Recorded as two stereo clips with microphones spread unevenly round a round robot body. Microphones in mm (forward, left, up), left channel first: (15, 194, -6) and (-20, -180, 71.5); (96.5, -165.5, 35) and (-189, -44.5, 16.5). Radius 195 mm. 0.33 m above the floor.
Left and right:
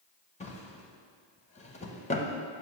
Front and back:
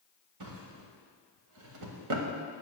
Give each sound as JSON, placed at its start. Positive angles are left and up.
{"t": 0.4, "sound": "a drawer", "azimuth_deg": 150, "distance_m": 1.1}